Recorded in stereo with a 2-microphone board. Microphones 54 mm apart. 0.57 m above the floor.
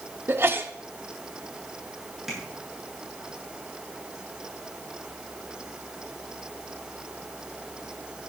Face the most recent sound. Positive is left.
turn(degrees=-5)  # may be behind; listen again after turning